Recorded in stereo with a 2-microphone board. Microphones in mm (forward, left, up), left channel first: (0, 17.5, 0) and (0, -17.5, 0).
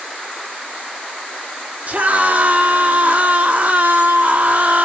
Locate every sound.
1.9 s a scream: 40° right (ahead or behind), 1.7 m